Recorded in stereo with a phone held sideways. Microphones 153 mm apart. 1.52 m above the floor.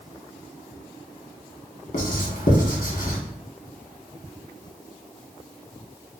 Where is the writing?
60° left (ahead or behind), 1.6 m.